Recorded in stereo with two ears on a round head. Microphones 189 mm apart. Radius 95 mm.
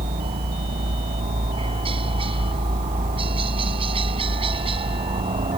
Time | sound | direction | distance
0.0 | a helicopter | 25° right (ahead or behind) | ?